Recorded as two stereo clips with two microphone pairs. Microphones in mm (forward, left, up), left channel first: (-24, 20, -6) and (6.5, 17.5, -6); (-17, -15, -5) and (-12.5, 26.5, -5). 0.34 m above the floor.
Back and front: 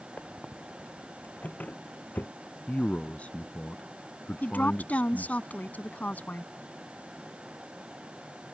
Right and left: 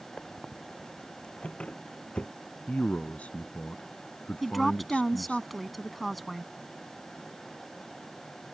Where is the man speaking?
150° right.